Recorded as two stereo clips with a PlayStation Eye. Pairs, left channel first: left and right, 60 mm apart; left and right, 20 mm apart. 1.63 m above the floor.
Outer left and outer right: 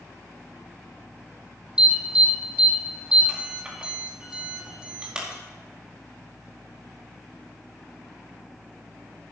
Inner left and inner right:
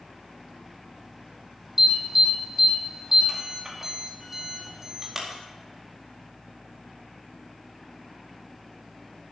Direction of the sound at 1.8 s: 15° right (ahead or behind).